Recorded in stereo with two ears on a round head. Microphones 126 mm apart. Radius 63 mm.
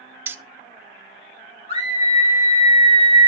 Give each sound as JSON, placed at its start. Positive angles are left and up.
{"t": 0.3, "sound": "keys jangling", "side_deg": -15, "distance_m": 0.7}
{"t": 1.7, "sound": "a scream", "side_deg": 45, "distance_m": 5.5}